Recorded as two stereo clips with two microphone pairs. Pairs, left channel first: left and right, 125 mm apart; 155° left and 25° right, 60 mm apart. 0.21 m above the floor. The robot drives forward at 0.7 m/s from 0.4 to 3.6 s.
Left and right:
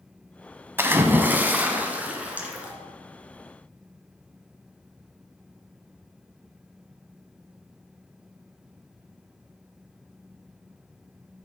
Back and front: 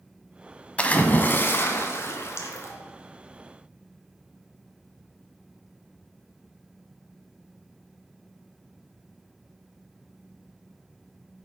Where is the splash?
150° right, 0.9 m; by 2.7 s 170° right, 2 m.